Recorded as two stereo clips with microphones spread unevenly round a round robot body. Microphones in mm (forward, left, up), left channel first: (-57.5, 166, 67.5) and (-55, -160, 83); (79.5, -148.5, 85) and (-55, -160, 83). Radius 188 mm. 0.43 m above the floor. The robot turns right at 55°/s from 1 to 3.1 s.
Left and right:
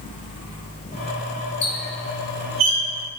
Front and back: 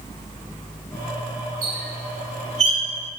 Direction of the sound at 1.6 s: 165° left.